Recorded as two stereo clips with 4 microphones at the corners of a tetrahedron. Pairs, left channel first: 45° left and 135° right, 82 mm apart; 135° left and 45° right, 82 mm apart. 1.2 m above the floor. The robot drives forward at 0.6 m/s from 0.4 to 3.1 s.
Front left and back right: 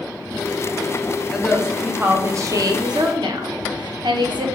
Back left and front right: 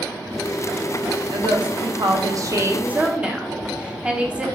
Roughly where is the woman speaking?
Ahead right.